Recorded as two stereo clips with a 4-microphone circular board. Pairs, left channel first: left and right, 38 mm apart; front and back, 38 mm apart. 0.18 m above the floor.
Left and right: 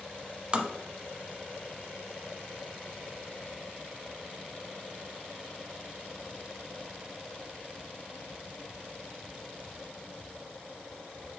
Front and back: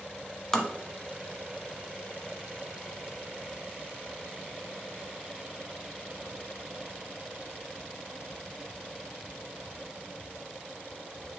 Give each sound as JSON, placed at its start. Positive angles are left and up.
{"t": 0.5, "sound": "tapping", "azimuth_deg": -70, "distance_m": 0.9}